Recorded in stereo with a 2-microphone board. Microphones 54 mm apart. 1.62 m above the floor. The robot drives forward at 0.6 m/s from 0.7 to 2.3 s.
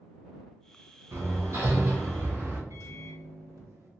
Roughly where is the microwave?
Right.